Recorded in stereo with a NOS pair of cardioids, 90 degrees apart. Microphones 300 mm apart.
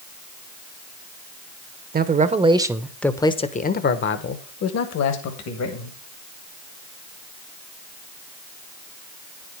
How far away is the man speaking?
About 1.0 m.